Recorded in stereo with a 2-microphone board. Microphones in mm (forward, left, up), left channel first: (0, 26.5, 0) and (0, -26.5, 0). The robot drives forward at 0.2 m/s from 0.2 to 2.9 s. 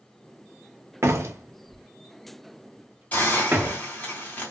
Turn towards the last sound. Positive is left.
turn(degrees=30)  # may be behind; listen again after turning